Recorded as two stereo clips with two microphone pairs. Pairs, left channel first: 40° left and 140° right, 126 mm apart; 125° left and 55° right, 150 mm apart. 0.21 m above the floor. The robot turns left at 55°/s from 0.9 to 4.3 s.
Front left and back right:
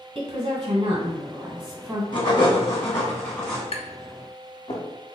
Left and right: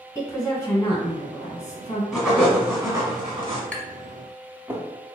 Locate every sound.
0.1 s a woman speaking: 160° right, 1.2 m; by 2.0 s 140° left, 1.2 m
2.1 s writing: 30° left, 1.5 m; by 3.6 s 50° right, 1.5 m
3.7 s tapping: 45° left, 0.7 m; by 4.9 s 10° left, 0.7 m